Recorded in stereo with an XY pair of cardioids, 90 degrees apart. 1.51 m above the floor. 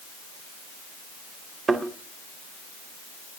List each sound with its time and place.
1.7 s a thud: 45° right, 3.5 m